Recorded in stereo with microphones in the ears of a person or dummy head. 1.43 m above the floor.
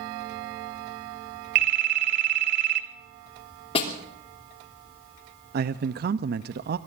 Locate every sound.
1.6 s a phone ringing: 55° right (ahead or behind), 1.5 m
3.8 s a snare drum: 30° left (ahead or behind), 3 m
5.5 s a man speaking: 50° right (ahead or behind), 0.5 m